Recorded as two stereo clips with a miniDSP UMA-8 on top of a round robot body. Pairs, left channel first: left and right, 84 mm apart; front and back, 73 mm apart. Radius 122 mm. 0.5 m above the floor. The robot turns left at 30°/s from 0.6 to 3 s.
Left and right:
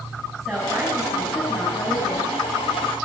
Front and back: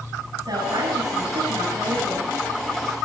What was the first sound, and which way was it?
A woman speaking, straight behind.